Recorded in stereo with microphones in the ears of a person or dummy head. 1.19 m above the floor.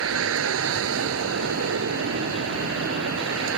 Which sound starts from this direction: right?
A vehicle, at 0.0 s.